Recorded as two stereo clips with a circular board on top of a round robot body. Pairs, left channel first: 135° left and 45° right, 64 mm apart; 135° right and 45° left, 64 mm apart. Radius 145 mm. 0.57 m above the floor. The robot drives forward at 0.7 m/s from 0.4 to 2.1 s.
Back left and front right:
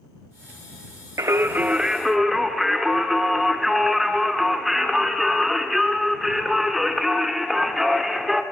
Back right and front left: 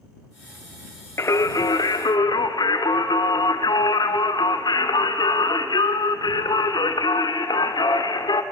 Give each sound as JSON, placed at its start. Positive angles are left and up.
{"t": 1.2, "sound": "singing", "azimuth_deg": -90, "distance_m": 0.7}